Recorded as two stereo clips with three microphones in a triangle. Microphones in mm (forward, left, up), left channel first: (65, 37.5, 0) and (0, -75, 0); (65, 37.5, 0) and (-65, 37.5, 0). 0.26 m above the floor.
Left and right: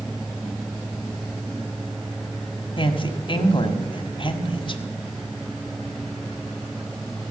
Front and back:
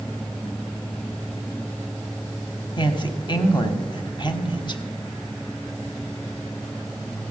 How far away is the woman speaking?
About 1.3 m.